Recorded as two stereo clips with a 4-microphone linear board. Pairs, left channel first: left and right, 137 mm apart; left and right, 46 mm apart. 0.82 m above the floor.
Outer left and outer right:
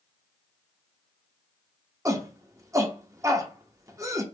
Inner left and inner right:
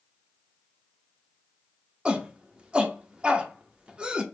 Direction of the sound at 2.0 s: 25° right (ahead or behind).